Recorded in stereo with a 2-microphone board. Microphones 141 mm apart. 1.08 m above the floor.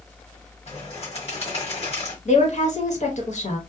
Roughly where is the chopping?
No chopping in this recording.